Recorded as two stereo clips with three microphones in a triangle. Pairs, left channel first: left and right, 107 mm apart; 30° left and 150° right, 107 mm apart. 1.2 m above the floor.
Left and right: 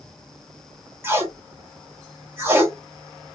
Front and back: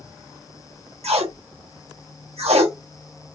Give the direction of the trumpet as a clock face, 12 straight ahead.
No trumpet in this recording.